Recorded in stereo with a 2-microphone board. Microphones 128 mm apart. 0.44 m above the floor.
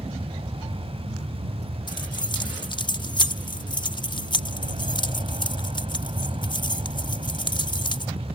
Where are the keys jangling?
35° left (ahead or behind).